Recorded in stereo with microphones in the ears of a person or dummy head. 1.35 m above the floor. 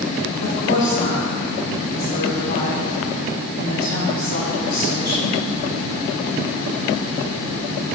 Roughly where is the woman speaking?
Left.